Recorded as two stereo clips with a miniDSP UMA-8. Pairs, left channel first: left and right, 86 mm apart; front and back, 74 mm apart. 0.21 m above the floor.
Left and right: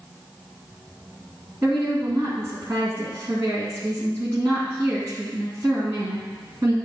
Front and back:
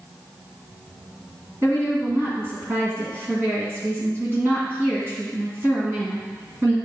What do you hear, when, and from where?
1.6 s a woman speaking: 140° right, 1.9 m